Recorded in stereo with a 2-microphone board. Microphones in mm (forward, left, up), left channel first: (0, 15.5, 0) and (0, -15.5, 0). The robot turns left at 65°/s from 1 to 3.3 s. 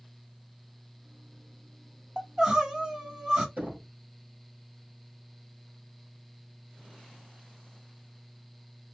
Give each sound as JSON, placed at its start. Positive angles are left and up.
{"t": 2.2, "sound": "crying", "side_deg": -20, "distance_m": 1.1}
{"t": 3.6, "sound": "knocking", "side_deg": -50, "distance_m": 2.5}